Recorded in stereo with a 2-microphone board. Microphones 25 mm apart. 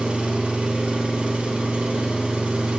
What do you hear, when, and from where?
0.0 s an engine running: 60° right (ahead or behind), 1.0 m